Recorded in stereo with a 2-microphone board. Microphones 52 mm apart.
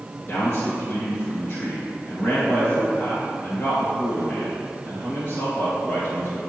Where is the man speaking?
45° left (ahead or behind), 2 m.